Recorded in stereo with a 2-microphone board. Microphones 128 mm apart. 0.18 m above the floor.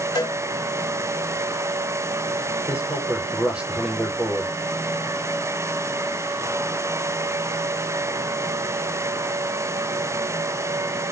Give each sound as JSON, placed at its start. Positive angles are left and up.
{"t": 0.1, "sound": "a cowbell", "side_deg": 35, "distance_m": 1.7}
{"t": 2.7, "sound": "a man speaking", "side_deg": -10, "distance_m": 4.0}